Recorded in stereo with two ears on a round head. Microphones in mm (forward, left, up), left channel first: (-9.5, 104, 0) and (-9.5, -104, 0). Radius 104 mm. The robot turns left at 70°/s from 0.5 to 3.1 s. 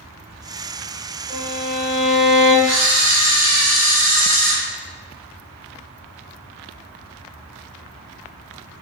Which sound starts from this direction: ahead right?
A violin, at 1.3 s.